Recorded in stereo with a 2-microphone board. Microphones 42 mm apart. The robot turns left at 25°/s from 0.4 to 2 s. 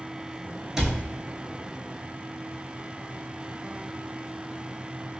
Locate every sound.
0.8 s a cupboard door: 15° right (ahead or behind), 0.7 m; by 1.0 s 10° right (ahead or behind), 0.7 m